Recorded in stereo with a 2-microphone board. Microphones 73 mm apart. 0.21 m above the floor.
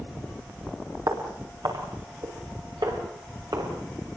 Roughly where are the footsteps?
Right.